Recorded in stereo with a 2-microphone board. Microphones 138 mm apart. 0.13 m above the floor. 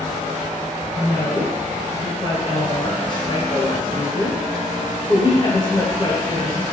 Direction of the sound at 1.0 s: 30° left (ahead or behind).